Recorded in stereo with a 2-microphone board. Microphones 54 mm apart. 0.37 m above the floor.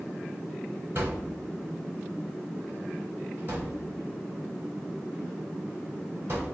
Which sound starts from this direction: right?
A thud, at 0.9 s.